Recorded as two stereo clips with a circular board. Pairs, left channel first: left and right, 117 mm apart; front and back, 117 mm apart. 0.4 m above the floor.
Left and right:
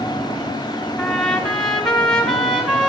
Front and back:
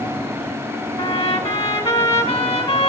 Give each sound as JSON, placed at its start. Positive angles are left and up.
{"t": 1.0, "sound": "a trumpet", "azimuth_deg": 0, "distance_m": 1.8}